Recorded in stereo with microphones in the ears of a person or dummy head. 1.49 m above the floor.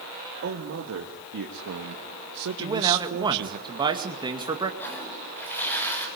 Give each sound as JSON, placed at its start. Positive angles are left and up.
{"t": 0.4, "sound": "a man speaking", "side_deg": -50, "distance_m": 2.5}
{"t": 2.6, "sound": "a man speaking", "side_deg": -15, "distance_m": 2.0}
{"t": 4.8, "sound": "a toilet flushing", "side_deg": 10, "distance_m": 8.0}